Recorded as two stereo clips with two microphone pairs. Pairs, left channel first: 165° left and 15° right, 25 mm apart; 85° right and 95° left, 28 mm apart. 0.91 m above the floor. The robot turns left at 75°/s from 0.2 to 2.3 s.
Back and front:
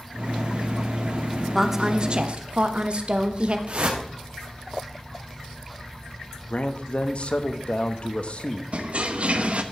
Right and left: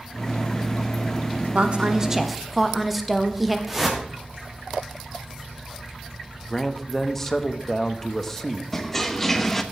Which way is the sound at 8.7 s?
5° right.